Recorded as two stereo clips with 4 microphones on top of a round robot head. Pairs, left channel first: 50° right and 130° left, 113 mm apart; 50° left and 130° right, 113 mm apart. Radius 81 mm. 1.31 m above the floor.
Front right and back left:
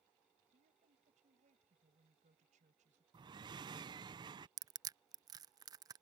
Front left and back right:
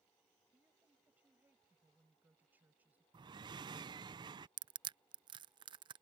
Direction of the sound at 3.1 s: Straight behind.